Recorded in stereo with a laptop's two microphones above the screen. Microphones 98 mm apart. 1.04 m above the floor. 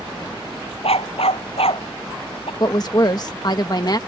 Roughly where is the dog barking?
Left.